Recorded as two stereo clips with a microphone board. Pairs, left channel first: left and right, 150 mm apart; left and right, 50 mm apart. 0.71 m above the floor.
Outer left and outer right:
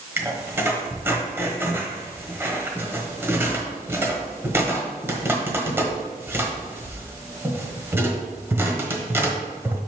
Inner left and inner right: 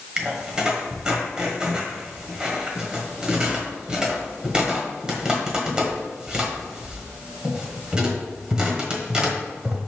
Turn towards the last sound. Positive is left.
turn(degrees=-15)  # may be behind; listen again after turning